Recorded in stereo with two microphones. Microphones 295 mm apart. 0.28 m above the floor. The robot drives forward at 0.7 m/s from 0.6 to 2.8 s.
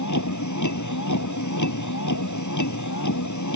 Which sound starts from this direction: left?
A vehicle, at 0.0 s.